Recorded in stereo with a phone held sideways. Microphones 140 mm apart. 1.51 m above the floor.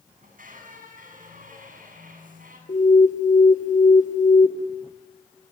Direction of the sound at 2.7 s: 65° left (ahead or behind).